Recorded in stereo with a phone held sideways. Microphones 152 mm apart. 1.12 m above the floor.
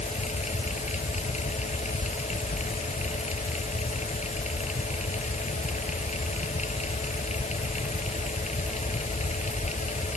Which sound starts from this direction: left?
A fan, at 0.0 s.